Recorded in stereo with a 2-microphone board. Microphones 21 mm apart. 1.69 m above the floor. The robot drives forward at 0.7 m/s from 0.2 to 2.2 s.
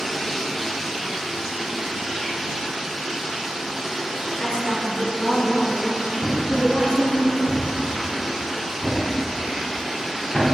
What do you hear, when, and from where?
0.0 s running water: 15° left (ahead or behind), 0.9 m; by 10.5 s 5° left (ahead or behind), 2 m
4.4 s a woman speaking: 65° left (ahead or behind), 2 m
6.2 s a thud: 45° left (ahead or behind), 3 m